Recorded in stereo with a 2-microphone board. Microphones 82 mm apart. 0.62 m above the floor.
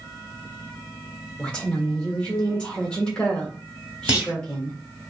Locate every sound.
1.4 s a woman speaking: 10° left (ahead or behind), 1.4 m
4.1 s a clunk: 15° right (ahead or behind), 1.8 m